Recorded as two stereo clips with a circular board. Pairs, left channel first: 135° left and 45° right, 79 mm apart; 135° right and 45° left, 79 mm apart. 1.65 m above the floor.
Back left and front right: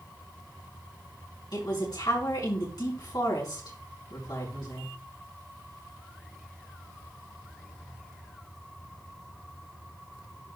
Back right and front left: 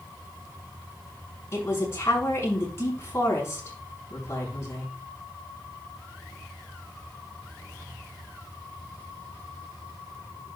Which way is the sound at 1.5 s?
165° left.